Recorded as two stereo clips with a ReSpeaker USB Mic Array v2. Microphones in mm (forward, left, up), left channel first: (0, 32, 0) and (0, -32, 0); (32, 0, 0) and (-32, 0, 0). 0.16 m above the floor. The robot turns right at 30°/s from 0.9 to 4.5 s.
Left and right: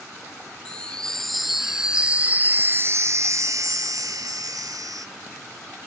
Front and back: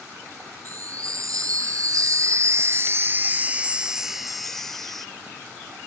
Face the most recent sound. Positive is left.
turn(degrees=-85)